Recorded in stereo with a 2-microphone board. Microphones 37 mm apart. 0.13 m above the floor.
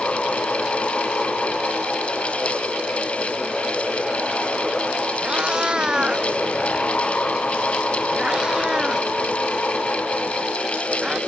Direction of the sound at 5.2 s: 20° right (ahead or behind).